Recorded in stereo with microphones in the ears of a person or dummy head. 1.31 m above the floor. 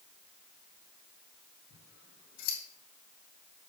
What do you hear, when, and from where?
1.7 s scissors: 65° left (ahead or behind), 3 m